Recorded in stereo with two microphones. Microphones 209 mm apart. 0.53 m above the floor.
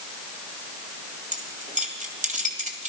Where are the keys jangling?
35° right (ahead or behind), 2 m.